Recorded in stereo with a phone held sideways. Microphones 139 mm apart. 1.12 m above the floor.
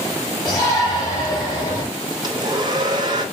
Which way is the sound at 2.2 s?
30° right (ahead or behind).